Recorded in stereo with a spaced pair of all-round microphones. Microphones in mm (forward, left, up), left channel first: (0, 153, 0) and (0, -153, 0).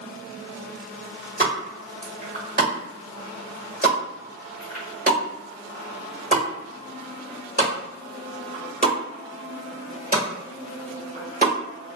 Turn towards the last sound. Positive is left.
turn(degrees=-30)  # may be behind; listen again after turning